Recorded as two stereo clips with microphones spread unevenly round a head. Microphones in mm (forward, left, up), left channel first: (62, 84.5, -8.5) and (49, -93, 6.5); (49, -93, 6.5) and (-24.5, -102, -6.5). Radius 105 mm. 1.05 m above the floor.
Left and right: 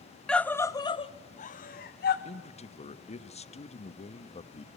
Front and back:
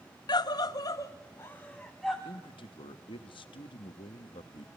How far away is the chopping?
No chopping in this recording.